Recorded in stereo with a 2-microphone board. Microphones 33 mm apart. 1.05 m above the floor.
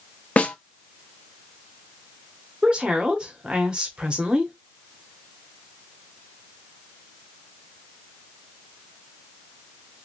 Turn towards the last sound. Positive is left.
turn(degrees=-30)  # may be behind; listen again after turning